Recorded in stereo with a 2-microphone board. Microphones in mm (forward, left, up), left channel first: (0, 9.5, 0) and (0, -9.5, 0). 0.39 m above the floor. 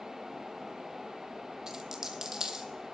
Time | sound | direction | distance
1.7 | a dropped coin | 25° right (ahead or behind) | 1.1 m